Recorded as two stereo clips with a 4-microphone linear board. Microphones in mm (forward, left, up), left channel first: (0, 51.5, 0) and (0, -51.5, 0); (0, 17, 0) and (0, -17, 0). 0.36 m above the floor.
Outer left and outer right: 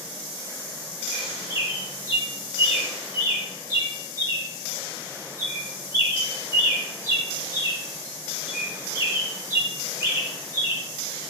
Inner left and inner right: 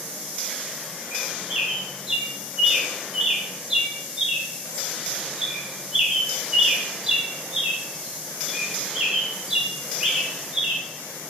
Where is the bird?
25° right (ahead or behind), 0.9 m.